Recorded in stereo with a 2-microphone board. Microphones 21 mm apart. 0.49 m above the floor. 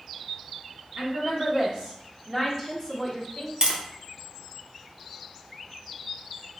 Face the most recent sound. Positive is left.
turn(degrees=-45)  # may be behind; listen again after turning